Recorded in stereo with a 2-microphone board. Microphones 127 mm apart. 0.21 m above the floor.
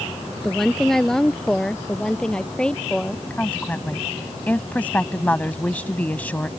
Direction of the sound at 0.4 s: Centre (ahead or behind).